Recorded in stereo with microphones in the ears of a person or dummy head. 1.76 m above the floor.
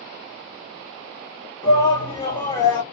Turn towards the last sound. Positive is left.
turn(degrees=15)  # may be behind; listen again after turning